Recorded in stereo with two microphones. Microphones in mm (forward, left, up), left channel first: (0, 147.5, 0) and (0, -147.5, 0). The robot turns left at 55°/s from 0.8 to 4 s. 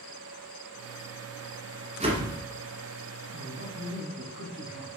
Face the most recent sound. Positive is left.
turn(degrees=-55)